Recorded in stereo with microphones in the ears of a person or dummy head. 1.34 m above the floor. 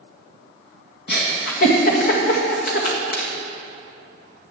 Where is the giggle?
55° left (ahead or behind), 1.9 m.